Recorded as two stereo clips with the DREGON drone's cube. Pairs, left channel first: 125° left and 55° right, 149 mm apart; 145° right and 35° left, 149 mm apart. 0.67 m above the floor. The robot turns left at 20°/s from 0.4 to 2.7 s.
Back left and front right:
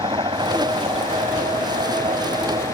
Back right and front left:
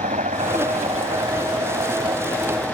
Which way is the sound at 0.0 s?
Straight ahead.